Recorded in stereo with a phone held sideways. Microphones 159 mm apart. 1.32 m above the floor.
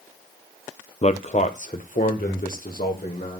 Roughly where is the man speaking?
Left.